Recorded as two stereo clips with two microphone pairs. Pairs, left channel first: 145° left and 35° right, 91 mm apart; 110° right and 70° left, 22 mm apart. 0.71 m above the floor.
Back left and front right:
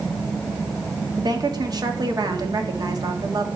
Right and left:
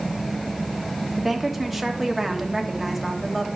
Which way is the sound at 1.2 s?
15° right.